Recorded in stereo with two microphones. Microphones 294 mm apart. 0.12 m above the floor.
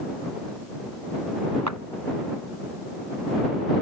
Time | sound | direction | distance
1.7 | a clap | 70° right (ahead or behind) | ?